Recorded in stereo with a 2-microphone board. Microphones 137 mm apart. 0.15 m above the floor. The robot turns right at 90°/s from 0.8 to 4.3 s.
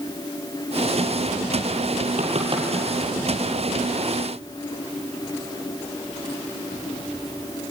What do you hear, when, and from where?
2.2 s knocking: 65° right (ahead or behind), 3.5 m; by 2.7 s 25° right (ahead or behind), 3.5 m